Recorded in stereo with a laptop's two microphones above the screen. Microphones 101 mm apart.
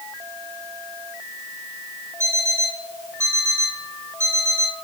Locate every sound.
2.2 s an alarm clock: 30° right (ahead or behind), 4 m